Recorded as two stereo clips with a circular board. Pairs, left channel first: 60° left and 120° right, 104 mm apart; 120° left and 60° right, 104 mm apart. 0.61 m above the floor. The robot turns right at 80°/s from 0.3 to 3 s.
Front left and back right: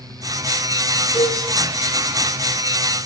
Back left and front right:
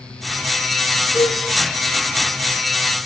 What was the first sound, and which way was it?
A cowbell, 10° left.